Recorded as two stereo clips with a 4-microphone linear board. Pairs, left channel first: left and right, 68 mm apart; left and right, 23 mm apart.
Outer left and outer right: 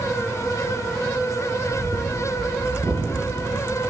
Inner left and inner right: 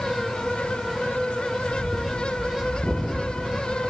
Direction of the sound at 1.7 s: 30° right (ahead or behind).